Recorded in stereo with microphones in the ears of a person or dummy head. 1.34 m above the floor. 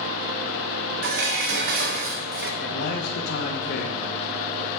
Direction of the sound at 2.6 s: 55° left (ahead or behind).